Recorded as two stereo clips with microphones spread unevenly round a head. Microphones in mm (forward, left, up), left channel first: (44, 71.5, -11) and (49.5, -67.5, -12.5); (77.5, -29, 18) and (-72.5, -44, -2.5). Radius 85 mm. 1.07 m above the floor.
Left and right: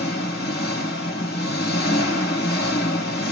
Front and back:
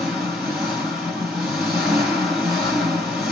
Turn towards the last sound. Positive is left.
turn(degrees=95)